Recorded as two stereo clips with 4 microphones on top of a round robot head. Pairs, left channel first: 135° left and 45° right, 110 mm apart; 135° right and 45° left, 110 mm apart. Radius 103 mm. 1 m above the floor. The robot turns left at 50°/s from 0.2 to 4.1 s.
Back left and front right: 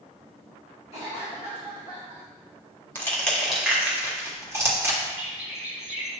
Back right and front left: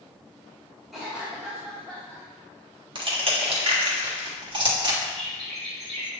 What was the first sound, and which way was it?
A cough, 135° left.